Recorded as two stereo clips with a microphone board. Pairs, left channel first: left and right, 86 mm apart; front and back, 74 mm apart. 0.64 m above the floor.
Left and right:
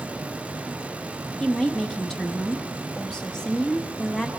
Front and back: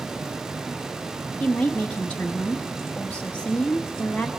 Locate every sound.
1.4 s a woman speaking: 20° left, 0.9 m